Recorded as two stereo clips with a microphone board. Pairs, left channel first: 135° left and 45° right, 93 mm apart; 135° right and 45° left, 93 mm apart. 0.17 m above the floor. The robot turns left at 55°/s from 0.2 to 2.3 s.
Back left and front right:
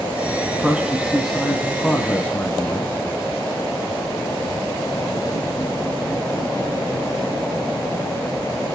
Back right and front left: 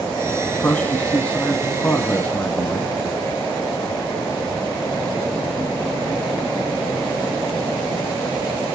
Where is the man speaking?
85° right, 1.0 m; by 3.0 s 175° left, 1.0 m.